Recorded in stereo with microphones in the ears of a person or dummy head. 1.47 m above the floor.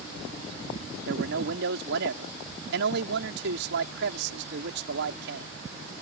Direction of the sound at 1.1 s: 60° right (ahead or behind).